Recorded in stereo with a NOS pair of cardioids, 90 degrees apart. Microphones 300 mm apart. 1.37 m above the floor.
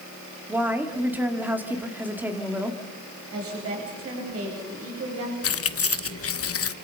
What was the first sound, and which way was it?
A woman speaking, 5° right.